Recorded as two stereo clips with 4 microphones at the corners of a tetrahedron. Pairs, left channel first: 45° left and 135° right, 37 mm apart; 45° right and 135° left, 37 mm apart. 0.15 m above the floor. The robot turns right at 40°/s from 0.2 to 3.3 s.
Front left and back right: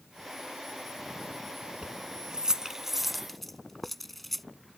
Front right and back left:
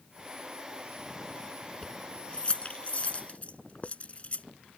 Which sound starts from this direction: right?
Keys jangling, at 1.8 s.